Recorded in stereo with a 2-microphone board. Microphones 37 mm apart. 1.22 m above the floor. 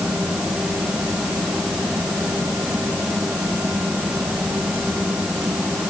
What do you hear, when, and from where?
Only background noise.